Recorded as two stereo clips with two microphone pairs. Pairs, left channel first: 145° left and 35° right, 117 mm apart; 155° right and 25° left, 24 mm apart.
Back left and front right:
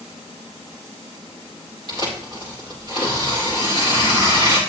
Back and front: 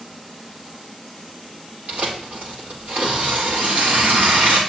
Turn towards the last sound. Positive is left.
turn(degrees=15)